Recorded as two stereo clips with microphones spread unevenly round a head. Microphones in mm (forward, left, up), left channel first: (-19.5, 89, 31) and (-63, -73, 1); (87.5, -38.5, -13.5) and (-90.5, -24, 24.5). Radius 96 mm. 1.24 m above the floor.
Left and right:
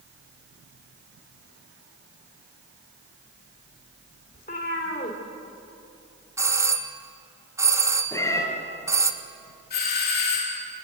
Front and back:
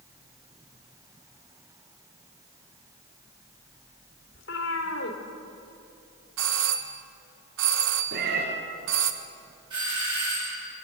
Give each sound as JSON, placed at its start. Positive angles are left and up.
{"t": 4.3, "sound": "a cat meowing", "azimuth_deg": 25, "distance_m": 2.5}
{"t": 6.4, "sound": "a doorbell", "azimuth_deg": -175, "distance_m": 1.4}
{"t": 8.1, "sound": "a cat meowing", "azimuth_deg": 145, "distance_m": 3.5}
{"t": 9.7, "sound": "a doorbell", "azimuth_deg": 105, "distance_m": 4.5}